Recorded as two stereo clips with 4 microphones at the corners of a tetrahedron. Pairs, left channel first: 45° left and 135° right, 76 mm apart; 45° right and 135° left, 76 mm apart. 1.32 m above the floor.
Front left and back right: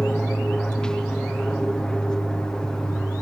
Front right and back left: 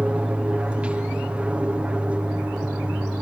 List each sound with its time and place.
0.0 s an aircraft: 105° left